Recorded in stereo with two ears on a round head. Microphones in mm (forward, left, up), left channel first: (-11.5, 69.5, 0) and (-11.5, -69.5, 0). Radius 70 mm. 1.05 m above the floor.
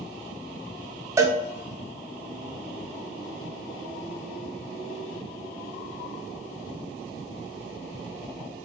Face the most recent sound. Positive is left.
turn(degrees=-20)  # may be behind; listen again after turning